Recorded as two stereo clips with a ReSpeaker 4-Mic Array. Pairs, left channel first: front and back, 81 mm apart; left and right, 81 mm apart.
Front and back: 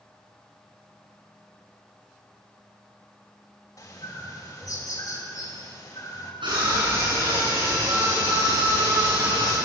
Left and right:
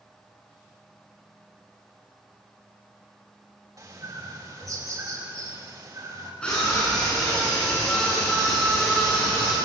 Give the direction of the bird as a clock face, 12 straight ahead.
2 o'clock.